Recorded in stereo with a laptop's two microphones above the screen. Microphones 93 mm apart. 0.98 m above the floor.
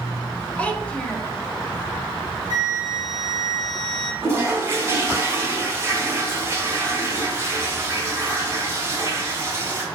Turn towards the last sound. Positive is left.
turn(degrees=-25)  # may be behind; listen again after turning